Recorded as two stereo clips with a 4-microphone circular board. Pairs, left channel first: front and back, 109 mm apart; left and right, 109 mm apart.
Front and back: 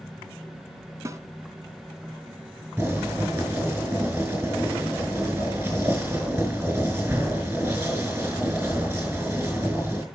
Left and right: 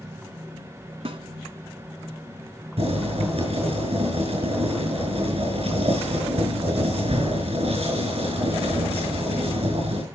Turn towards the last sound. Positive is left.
turn(degrees=-110)